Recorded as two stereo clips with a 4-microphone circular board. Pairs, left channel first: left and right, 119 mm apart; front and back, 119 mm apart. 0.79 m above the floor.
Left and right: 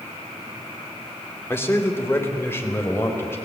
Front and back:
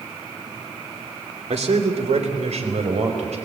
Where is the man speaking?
160° left, 2.5 m.